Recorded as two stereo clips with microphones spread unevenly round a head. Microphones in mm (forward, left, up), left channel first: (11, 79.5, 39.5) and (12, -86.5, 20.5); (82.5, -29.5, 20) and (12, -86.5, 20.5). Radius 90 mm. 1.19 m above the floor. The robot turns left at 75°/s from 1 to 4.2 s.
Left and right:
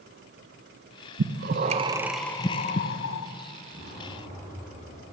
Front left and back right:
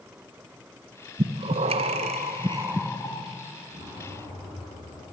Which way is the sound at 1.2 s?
110° right.